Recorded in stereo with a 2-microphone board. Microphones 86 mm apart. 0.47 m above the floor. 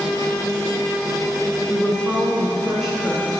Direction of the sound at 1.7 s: 10° left (ahead or behind).